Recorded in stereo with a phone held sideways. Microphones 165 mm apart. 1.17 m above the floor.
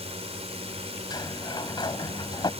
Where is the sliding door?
25° left (ahead or behind).